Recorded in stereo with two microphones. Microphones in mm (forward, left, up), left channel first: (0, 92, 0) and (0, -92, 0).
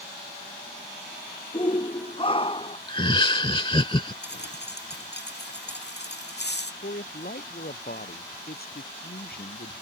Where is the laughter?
25° left (ahead or behind).